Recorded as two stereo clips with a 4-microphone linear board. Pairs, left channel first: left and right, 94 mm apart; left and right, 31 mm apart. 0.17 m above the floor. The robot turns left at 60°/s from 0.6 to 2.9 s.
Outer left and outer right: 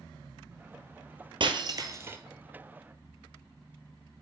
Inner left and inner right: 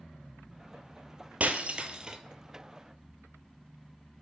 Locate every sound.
1.4 s breaking glass: 70° right (ahead or behind), 0.6 m; by 2.2 s 25° right (ahead or behind), 0.6 m